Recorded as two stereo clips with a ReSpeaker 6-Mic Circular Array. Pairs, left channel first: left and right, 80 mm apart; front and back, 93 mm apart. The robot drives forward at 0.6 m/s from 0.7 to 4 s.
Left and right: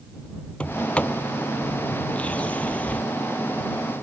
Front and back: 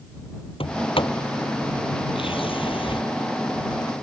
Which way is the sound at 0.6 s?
15° left.